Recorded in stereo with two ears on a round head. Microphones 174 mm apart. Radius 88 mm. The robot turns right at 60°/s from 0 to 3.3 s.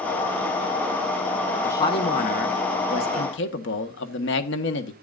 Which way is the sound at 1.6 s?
10° left.